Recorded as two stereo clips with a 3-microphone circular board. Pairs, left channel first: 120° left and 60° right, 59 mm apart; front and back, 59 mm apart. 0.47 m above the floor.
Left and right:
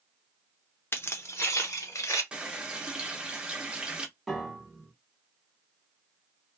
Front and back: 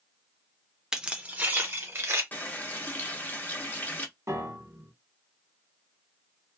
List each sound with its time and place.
0.9 s keys jangling: 105° left, 0.5 m; by 2.2 s 140° left, 1.0 m
2.3 s a running tap: straight ahead, 0.6 m
4.3 s a piano: 150° right, 0.9 m